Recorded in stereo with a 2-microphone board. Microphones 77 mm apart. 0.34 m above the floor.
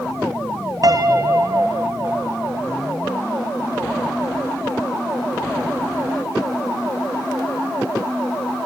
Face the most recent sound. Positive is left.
turn(degrees=-55)  # may be behind; listen again after turning